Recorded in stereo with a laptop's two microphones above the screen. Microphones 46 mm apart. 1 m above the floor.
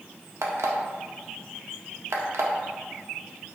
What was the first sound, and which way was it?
An alarm clock, 75° right (ahead or behind).